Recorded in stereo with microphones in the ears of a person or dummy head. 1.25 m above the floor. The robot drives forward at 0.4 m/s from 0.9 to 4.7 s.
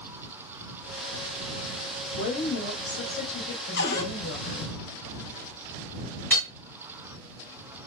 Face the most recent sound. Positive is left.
turn(degrees=10)  # may be behind; listen again after turning